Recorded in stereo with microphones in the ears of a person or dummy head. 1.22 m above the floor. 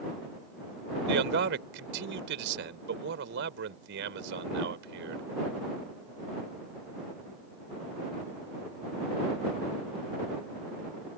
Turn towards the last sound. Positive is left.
turn(degrees=-65)  # may be behind; listen again after turning